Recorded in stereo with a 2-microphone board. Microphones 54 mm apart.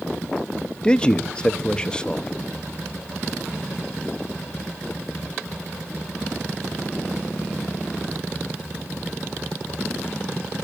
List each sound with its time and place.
0.8 s a man speaking: 15° left (ahead or behind), 0.6 m